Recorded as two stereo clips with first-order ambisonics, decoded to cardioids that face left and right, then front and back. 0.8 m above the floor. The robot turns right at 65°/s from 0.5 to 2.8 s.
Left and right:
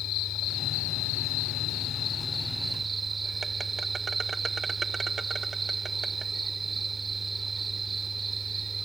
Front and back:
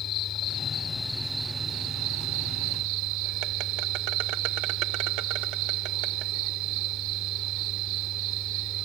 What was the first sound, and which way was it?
An insect, 50° left.